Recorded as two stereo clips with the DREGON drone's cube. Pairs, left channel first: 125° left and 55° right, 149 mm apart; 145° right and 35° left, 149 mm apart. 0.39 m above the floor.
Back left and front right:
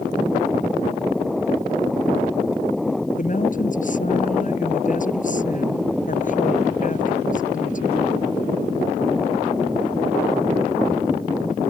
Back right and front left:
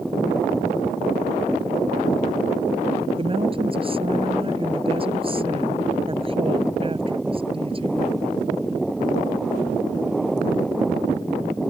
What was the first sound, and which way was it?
A woman speaking, 90° left.